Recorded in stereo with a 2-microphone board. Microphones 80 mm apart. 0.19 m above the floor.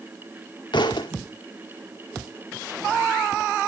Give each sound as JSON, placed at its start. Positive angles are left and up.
{"t": 0.7, "sound": "a thud", "side_deg": 75, "distance_m": 1.6}